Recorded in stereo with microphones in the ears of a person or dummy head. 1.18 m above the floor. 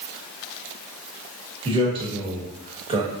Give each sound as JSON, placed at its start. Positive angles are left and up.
{"t": 1.6, "sound": "a man speaking", "side_deg": -25, "distance_m": 1.0}